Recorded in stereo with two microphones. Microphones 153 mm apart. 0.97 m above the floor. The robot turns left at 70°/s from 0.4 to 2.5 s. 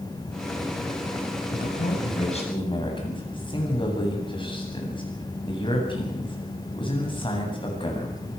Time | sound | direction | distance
1.5 | a man speaking | 100° left | 8 m